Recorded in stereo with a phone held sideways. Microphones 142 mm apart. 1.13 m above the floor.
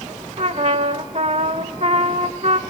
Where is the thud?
No thud in this recording.